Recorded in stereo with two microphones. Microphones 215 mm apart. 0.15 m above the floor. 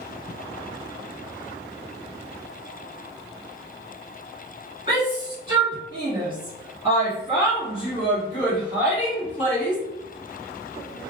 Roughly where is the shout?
Right.